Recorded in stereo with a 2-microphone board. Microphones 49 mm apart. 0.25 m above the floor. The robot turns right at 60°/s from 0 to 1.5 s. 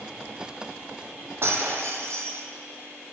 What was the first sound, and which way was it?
Breaking glass, 55° right (ahead or behind).